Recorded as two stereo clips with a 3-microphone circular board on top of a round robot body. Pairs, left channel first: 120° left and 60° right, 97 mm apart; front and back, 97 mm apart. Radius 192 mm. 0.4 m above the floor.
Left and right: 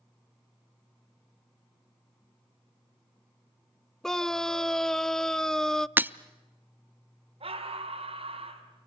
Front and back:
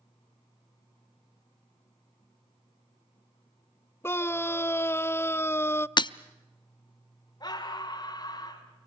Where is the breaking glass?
5° left, 0.7 m.